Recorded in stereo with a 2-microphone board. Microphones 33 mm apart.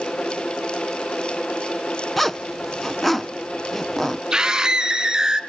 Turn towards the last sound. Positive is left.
turn(degrees=-20)  # may be behind; listen again after turning